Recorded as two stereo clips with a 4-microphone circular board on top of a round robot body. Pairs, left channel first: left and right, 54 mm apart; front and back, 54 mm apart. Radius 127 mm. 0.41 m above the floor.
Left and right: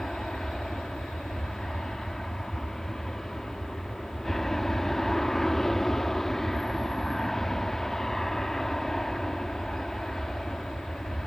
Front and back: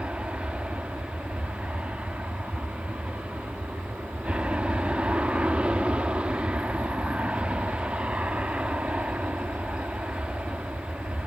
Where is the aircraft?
165° left.